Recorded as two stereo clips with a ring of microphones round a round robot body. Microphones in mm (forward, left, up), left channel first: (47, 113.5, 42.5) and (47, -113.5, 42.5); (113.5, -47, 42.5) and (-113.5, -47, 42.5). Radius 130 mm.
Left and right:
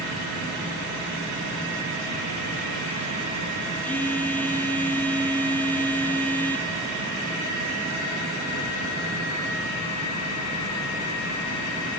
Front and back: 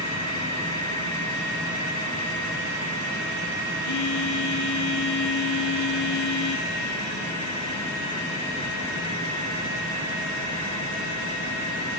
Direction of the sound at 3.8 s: 10° left.